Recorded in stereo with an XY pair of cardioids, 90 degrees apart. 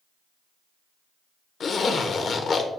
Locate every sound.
1.6 s a zipper: 60° left, 0.7 m